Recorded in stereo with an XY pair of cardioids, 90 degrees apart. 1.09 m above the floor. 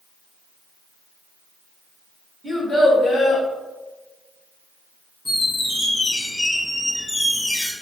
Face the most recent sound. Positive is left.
turn(degrees=15)